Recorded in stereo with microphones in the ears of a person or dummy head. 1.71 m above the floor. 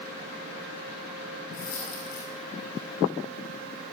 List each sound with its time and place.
1.5 s a dropped coin: 80° left, 9.5 m